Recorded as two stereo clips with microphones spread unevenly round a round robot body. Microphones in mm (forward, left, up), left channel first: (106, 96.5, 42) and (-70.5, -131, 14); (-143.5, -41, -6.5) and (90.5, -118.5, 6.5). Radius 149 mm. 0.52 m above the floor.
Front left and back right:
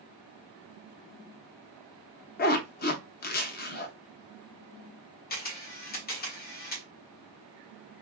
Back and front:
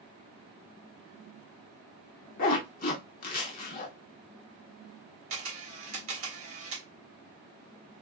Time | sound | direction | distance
2.4 | a zipper | 110° left | 0.6 m
5.3 | a camera shutter | 5° right | 1.6 m